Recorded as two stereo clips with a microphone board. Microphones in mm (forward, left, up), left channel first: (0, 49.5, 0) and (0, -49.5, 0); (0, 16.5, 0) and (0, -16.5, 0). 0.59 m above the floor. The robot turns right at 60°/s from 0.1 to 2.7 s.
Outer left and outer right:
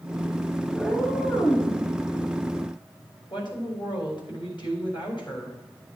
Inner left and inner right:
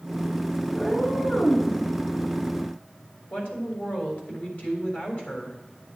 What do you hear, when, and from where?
0.7 s a cat meowing: straight ahead, 3.5 m; by 1.7 s 60° left, 3.5 m
3.3 s a woman speaking: 50° left (ahead or behind), 3.5 m